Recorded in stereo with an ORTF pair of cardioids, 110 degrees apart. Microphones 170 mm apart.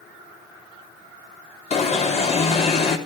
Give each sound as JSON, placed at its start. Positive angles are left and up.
{"t": 1.7, "sound": "an alarm", "azimuth_deg": 40, "distance_m": 3.5}